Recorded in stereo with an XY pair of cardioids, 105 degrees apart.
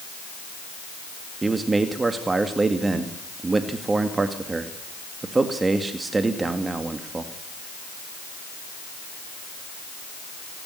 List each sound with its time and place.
1.4 s a man speaking: 25° right, 2 m